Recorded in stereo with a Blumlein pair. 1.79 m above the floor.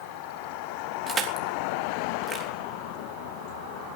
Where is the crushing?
20° right, 3.5 m.